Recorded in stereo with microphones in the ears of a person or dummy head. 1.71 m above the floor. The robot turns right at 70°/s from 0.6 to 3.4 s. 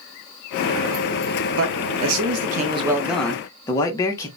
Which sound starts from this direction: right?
A man speaking, at 1.6 s.